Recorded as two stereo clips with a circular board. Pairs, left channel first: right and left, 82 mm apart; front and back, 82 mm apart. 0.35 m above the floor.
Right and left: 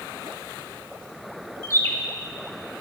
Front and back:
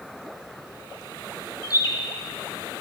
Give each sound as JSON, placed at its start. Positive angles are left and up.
{"t": 1.6, "sound": "a bird", "azimuth_deg": -40, "distance_m": 0.6}